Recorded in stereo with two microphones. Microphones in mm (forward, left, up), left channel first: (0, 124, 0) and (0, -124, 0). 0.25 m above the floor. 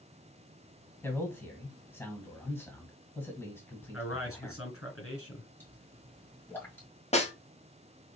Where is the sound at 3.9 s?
60° left (ahead or behind), 2 m.